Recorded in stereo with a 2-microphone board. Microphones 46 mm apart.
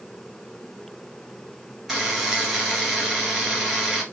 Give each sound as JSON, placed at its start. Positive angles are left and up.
{"t": 1.9, "sound": "a buzzer", "side_deg": -5, "distance_m": 1.9}